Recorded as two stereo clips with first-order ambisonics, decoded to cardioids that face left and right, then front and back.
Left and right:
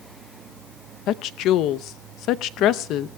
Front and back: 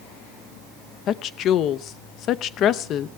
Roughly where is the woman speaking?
Ahead left.